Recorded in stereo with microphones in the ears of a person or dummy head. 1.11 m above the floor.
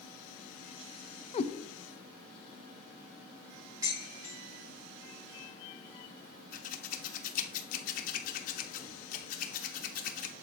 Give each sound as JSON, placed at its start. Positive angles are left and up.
{"t": 1.3, "sound": "a cat meowing", "side_deg": 30, "distance_m": 0.5}
{"t": 3.8, "sound": "dishes clattering", "side_deg": -20, "distance_m": 1.7}
{"t": 6.5, "sound": "scissors", "side_deg": 45, "distance_m": 0.9}